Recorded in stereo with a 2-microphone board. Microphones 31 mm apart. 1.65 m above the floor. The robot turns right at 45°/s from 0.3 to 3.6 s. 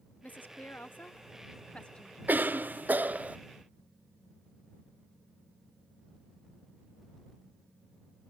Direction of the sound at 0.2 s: 70° left.